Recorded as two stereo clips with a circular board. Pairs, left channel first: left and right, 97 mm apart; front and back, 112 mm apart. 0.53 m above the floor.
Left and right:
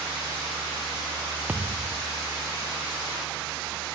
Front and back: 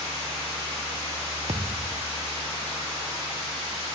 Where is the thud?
160° right.